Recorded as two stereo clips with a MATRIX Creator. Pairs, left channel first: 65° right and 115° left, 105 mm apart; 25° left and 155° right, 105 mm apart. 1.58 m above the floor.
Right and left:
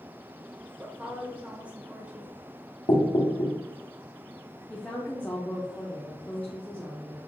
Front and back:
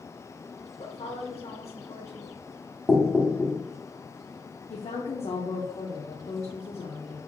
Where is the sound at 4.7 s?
10° left, 0.6 m.